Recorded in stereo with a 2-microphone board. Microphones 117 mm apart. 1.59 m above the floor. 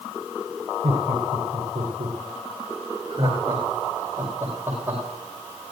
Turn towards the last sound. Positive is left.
turn(degrees=-20)  # may be behind; listen again after turning